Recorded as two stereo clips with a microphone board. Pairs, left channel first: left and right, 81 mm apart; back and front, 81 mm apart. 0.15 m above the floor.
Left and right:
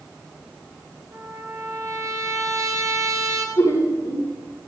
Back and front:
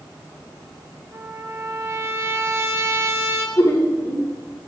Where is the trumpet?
50° right, 3 m.